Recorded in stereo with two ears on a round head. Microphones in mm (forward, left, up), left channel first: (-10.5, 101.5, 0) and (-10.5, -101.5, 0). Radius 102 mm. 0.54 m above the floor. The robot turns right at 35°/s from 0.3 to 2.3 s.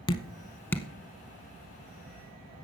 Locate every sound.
0.1 s dripping: 25° left (ahead or behind), 0.6 m; by 0.9 s 5° left (ahead or behind), 0.6 m